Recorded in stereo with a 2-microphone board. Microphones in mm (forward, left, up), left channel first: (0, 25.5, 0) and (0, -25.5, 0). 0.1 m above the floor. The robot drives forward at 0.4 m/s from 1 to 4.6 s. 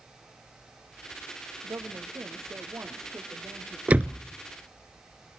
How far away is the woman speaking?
About 3.5 m.